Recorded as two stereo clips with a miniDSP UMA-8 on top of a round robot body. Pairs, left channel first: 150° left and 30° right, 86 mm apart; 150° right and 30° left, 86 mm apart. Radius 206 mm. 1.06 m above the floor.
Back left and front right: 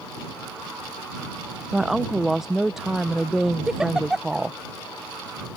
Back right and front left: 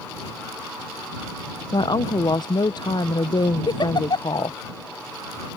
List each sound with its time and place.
1.7 s a woman speaking: 115° right
3.7 s a giggle: 115° right